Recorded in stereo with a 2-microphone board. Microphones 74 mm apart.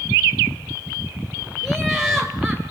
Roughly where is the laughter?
Centre.